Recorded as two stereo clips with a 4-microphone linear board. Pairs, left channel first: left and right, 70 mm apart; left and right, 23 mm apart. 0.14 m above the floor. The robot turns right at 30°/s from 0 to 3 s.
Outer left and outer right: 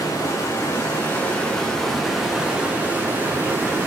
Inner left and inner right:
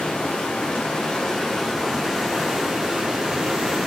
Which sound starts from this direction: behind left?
Running water, at 0.0 s.